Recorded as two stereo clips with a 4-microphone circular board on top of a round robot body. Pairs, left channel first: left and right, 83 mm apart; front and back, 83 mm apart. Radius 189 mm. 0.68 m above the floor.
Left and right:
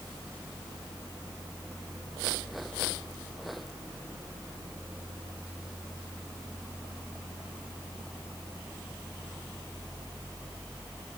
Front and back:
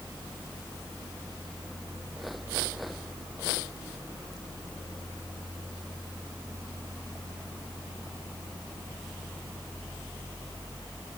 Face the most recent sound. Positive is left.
No sound to turn to.